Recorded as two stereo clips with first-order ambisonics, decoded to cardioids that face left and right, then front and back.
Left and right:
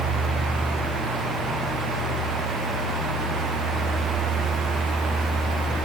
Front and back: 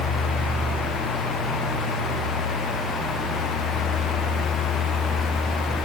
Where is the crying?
I don't hear crying.